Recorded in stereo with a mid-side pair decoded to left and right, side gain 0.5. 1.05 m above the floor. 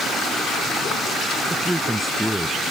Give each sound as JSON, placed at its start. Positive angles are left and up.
{"t": 1.5, "sound": "a man speaking", "azimuth_deg": -5}